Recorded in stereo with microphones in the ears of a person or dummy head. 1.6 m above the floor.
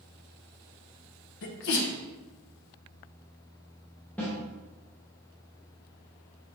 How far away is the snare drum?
About 1.1 m.